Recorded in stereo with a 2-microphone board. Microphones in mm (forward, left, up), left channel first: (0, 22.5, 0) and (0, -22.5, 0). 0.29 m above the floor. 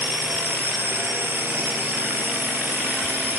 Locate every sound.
0.0 s a drone: 55° right (ahead or behind)